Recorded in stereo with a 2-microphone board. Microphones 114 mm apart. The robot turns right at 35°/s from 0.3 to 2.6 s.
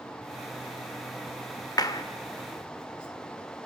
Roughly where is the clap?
Left.